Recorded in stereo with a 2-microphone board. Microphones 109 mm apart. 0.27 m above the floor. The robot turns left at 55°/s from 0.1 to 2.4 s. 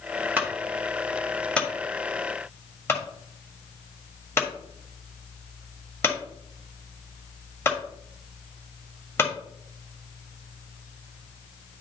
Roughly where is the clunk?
Centre.